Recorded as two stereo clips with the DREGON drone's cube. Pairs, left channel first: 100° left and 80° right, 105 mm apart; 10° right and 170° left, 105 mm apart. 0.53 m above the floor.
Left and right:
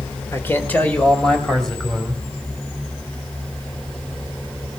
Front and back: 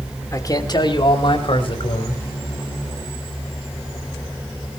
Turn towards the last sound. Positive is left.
turn(degrees=10)